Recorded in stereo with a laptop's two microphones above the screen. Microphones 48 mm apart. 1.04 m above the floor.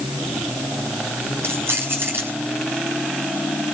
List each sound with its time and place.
1.4 s keys jangling: 65° right (ahead or behind), 5.5 m